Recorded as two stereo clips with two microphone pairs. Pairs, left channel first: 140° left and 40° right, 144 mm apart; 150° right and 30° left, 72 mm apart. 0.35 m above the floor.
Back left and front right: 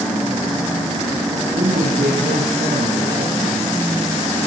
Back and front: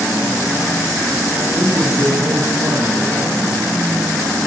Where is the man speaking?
5° right, 8 m.